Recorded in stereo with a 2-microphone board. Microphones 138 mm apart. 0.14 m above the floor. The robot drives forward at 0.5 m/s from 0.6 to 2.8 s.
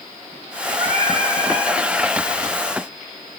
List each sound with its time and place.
0.8 s singing: 40° right (ahead or behind), 1.9 m